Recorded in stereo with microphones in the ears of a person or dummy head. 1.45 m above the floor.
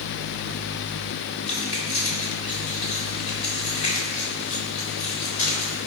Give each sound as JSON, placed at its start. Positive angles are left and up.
{"t": 1.5, "sound": "keys jangling", "side_deg": 35, "distance_m": 3.5}